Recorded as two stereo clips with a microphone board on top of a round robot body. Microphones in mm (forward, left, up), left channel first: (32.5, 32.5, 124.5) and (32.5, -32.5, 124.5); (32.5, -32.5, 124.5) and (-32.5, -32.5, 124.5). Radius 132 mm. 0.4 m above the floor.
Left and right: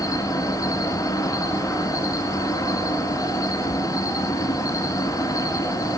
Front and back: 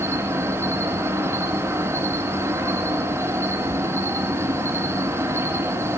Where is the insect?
125° left, 2.5 m.